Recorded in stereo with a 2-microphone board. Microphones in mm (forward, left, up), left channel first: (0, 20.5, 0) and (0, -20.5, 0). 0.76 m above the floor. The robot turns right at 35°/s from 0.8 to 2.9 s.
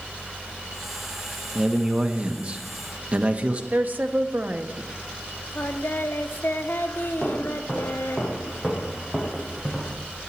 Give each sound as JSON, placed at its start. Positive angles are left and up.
{"t": 1.6, "sound": "a man speaking", "azimuth_deg": -145, "distance_m": 1.1}
{"t": 3.7, "sound": "a woman speaking", "side_deg": -45, "distance_m": 1.0}
{"t": 5.5, "sound": "singing", "side_deg": 65, "distance_m": 0.9}
{"t": 7.2, "sound": "footsteps", "side_deg": 5, "distance_m": 5.5}